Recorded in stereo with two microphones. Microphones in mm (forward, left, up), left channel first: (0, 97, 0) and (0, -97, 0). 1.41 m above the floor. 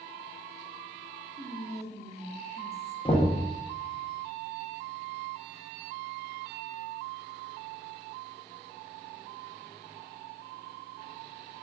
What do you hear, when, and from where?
1.4 s whispering: 35° right (ahead or behind), 1.0 m
3.0 s knocking: 25° left (ahead or behind), 0.7 m